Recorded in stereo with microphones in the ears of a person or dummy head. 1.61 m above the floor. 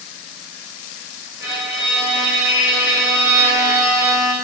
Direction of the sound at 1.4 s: 20° right (ahead or behind).